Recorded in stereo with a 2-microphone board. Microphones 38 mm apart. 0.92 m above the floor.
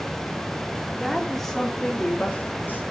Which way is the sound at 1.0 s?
5° right (ahead or behind).